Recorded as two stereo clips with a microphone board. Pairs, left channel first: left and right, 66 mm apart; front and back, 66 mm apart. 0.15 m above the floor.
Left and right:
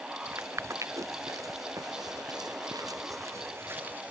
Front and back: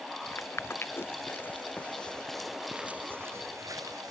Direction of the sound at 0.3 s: 45° right.